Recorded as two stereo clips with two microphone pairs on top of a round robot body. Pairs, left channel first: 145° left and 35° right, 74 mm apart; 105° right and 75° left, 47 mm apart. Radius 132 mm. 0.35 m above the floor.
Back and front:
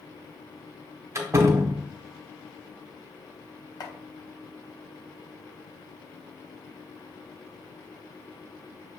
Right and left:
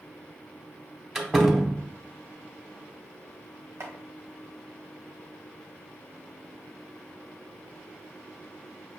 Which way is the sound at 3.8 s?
110° left.